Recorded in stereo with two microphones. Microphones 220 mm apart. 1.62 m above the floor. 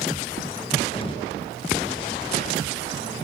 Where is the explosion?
25° left (ahead or behind), 0.9 m.